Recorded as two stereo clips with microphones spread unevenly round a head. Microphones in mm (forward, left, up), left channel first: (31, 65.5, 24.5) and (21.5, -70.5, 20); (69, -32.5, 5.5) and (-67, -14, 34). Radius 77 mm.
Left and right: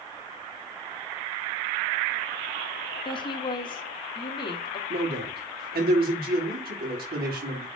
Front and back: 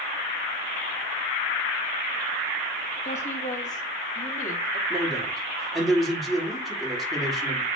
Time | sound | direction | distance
3.0 | a woman speaking | 30° left | 1.5 m
4.9 | a man speaking | 95° right | 3.5 m